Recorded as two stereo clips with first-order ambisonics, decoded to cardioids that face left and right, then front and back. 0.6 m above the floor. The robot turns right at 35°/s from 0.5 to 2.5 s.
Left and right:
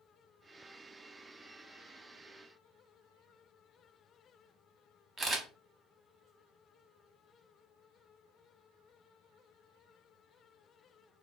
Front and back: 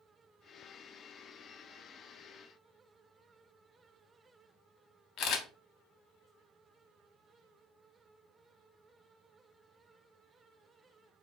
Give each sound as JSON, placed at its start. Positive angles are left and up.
{"t": 5.2, "sound": "a camera shutter", "azimuth_deg": -15, "distance_m": 0.5}